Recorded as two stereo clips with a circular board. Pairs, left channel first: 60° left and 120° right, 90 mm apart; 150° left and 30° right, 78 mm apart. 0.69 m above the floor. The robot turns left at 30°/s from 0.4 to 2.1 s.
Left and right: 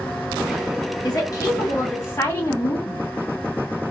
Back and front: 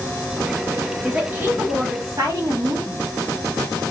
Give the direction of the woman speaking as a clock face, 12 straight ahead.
11 o'clock.